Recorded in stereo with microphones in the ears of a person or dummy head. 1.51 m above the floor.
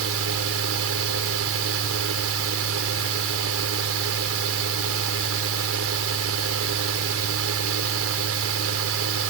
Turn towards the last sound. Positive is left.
turn(degrees=-75)  # may be behind; listen again after turning